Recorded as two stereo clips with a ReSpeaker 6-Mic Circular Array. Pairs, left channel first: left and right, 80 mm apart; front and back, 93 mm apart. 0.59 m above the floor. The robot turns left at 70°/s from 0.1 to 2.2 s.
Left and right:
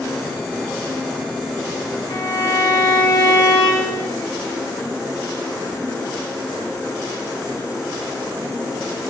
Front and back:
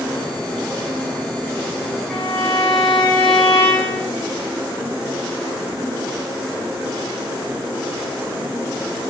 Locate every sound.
2.1 s a violin: 85° left, 2.5 m; by 4.1 s 75° left, 2.5 m